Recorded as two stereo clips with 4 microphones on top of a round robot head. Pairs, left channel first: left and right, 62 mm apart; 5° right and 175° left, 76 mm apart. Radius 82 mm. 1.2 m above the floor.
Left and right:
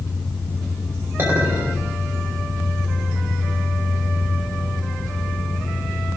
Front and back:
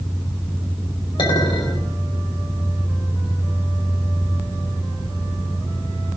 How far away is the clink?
About 4.5 m.